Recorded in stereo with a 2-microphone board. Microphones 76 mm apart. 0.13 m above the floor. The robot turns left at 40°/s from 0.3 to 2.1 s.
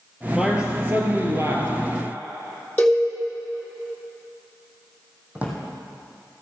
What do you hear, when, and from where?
0.3 s a man speaking: 5° right, 2 m; by 1.7 s 60° right, 2 m
2.8 s a cowbell: 20° left (ahead or behind), 2 m
5.3 s a drawer: 20° right (ahead or behind), 2 m